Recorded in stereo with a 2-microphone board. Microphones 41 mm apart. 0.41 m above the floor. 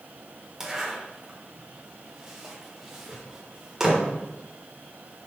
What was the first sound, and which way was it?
A zipper, 10° right (ahead or behind).